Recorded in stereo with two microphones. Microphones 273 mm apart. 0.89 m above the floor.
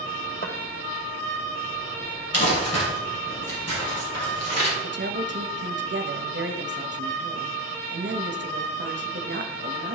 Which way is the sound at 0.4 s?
35° left (ahead or behind).